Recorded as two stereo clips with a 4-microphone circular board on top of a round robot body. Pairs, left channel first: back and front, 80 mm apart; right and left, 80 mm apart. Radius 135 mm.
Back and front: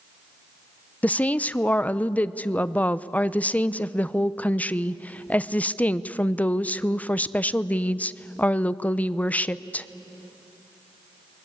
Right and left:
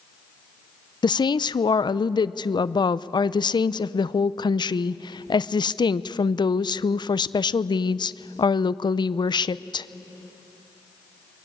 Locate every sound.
1.0 s a woman speaking: 110° right, 0.6 m